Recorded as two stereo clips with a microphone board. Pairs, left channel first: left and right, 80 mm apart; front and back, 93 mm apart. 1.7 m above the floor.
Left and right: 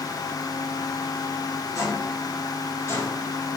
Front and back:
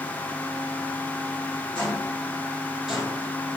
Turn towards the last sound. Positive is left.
turn(degrees=120)